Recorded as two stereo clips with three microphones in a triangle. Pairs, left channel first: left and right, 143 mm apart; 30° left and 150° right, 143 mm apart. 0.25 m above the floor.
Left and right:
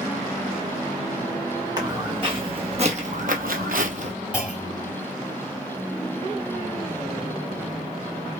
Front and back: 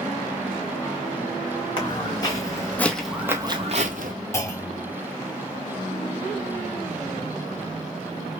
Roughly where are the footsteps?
Ahead right.